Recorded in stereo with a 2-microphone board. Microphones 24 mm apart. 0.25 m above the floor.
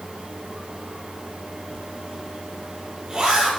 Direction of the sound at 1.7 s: 30° right (ahead or behind).